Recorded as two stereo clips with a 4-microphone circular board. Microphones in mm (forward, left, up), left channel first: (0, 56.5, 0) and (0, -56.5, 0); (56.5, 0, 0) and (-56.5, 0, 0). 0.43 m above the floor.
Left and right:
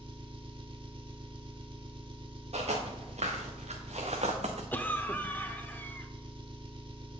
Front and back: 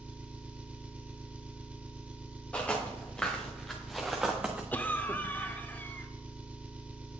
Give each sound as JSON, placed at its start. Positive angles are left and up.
{"t": 0.0, "sound": "an engine running", "azimuth_deg": -105, "distance_m": 0.9}
{"t": 2.5, "sound": "footsteps", "azimuth_deg": -80, "distance_m": 2.5}
{"t": 4.7, "sound": "a cough", "azimuth_deg": 45, "distance_m": 0.8}